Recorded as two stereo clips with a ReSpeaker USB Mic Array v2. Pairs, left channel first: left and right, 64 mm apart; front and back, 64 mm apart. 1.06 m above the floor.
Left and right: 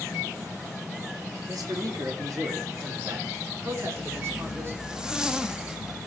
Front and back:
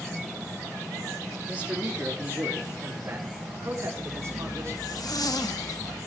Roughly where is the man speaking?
Right.